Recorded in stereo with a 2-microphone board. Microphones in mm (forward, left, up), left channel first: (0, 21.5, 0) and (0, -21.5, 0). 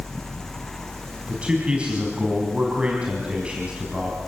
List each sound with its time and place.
1.3 s a man speaking: 25° right (ahead or behind), 4 m